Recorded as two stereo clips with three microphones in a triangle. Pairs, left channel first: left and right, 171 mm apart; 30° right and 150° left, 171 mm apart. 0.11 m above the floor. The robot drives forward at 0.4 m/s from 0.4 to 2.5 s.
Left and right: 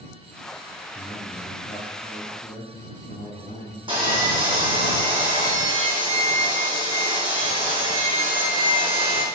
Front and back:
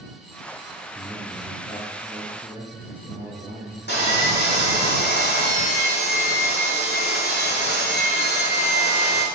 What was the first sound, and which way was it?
A man speaking, 80° left.